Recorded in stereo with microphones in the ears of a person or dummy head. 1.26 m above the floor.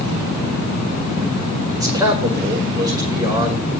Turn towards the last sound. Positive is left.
turn(degrees=-15)  # may be behind; listen again after turning